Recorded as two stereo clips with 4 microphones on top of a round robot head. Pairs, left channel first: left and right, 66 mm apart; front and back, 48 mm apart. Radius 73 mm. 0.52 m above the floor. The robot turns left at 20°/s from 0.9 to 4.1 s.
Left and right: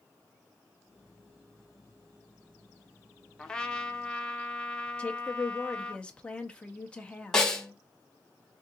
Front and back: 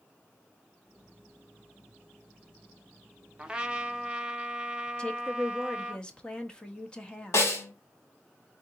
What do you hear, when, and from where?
3.4 s a trumpet: 150° left, 0.9 m; by 6.0 s 140° left, 0.9 m
5.0 s a woman speaking: 40° left, 1.0 m
7.3 s a snare drum: 10° left, 1.5 m